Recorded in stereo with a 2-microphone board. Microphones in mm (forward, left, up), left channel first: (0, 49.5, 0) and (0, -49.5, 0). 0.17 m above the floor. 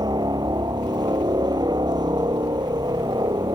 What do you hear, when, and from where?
0.0 s a helicopter: 45° right (ahead or behind)